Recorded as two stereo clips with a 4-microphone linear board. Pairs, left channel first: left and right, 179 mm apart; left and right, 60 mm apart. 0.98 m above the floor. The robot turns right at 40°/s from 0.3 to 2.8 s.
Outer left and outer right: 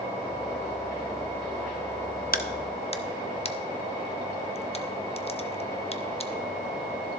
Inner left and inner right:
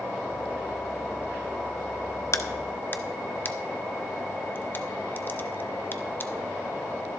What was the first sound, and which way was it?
A crack, 55° left (ahead or behind).